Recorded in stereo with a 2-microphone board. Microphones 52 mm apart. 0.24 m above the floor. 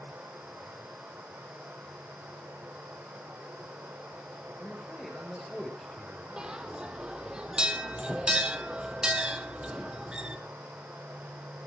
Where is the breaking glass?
I don't hear breaking glass.